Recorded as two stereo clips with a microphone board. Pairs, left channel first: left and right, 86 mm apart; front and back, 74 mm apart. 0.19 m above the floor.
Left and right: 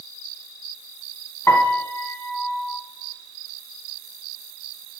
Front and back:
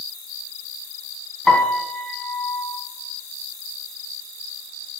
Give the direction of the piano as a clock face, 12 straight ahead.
10 o'clock.